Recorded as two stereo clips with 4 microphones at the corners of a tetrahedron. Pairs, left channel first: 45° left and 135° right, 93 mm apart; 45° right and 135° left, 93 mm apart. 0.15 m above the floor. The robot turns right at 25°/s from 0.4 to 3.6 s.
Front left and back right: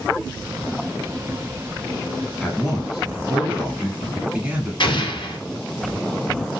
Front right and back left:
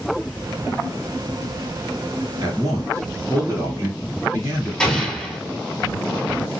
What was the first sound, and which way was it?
A man speaking, 130° left.